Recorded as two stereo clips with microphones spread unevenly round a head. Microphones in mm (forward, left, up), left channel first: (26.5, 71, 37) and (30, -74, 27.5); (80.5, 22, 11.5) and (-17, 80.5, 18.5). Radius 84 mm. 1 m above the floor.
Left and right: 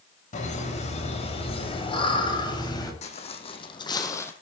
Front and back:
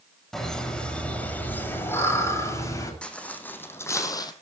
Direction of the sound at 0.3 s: 55° left.